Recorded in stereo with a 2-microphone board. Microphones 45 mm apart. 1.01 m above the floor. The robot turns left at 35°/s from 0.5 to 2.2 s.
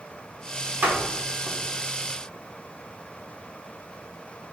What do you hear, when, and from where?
0.8 s a door slam: 50° right (ahead or behind), 2.5 m; by 1.6 s 25° right (ahead or behind), 2.5 m